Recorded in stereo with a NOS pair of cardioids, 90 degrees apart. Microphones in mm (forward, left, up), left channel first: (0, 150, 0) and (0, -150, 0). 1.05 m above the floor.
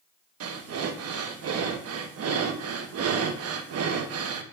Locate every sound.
0.4 s breathing: 55° right, 1.0 m